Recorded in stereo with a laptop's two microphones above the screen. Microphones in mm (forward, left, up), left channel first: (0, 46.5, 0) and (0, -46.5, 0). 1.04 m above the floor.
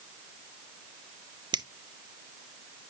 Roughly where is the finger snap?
Right.